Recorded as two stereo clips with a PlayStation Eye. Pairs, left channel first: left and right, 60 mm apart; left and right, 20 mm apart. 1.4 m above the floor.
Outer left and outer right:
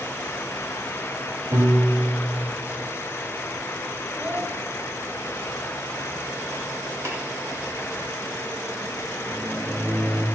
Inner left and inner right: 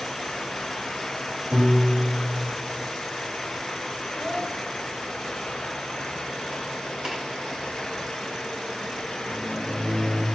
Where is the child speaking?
45° right (ahead or behind), 5 m.